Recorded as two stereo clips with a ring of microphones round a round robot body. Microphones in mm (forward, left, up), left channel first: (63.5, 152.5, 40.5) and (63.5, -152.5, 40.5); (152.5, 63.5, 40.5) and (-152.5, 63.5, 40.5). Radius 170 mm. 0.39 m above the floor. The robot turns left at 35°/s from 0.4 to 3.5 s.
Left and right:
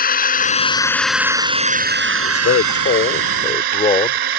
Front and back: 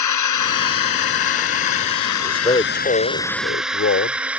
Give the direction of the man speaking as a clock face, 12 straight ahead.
10 o'clock.